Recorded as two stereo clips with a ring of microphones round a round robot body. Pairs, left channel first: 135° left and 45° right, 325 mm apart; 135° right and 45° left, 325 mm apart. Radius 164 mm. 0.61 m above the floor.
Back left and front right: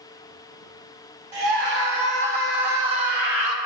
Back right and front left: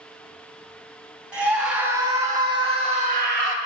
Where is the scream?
40° right, 4.5 m; by 3.6 s 5° right, 1.7 m.